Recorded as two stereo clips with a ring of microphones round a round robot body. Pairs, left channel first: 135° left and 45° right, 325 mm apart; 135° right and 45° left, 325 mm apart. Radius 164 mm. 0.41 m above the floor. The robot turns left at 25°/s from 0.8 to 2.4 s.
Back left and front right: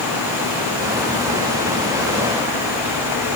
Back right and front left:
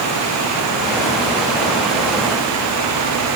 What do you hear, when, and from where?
Only background noise.